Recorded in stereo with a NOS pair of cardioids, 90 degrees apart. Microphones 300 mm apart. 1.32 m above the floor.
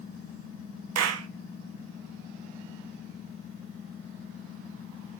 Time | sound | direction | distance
0.9 | a clap | 65° right | 0.9 m